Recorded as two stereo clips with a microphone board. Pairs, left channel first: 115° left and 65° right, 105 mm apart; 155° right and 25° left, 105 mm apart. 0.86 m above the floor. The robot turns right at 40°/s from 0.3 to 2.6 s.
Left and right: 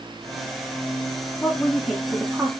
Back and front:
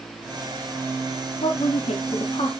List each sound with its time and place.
1.4 s a woman speaking: 175° right, 1.5 m; by 2.5 s 130° right, 1.5 m